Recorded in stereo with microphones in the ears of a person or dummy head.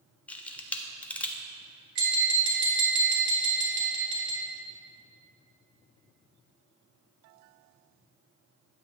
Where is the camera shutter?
10° left (ahead or behind), 0.6 m.